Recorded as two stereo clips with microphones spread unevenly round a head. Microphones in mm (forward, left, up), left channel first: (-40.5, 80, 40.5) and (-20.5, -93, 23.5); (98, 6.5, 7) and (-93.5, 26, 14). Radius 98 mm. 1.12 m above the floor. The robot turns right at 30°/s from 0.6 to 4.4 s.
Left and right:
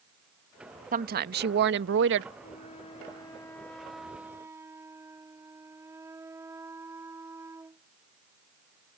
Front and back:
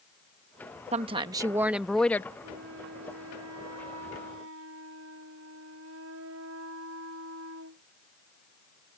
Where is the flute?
140° left; by 7.9 s 160° right.